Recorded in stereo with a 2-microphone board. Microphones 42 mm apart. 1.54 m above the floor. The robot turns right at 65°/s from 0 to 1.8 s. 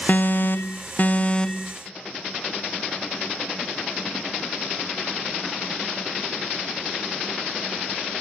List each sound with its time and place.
0.1 s an alarm: 65° left; by 1.8 s 175° left